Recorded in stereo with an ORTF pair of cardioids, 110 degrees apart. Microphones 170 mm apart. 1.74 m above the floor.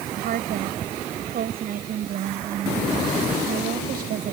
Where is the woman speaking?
60° right.